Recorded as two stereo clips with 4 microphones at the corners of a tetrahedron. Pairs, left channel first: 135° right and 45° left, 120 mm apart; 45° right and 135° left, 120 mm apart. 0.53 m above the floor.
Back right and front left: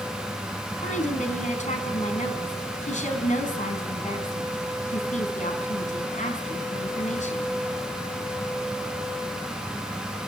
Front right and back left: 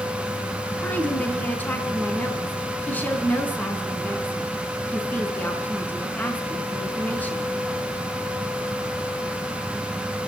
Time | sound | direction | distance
0.8 | a woman speaking | 120° right | 4.5 m